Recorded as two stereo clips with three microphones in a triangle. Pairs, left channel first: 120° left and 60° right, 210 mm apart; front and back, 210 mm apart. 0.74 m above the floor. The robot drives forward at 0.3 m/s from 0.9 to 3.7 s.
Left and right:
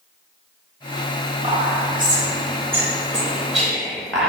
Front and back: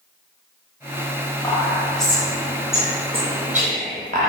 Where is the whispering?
50° right, 0.7 m; by 4.3 s 150° right, 0.8 m.